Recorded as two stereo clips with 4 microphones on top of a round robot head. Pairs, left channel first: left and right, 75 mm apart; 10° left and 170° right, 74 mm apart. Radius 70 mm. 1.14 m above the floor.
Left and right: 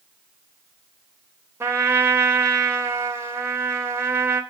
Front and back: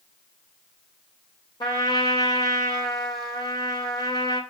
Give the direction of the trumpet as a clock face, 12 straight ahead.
1 o'clock.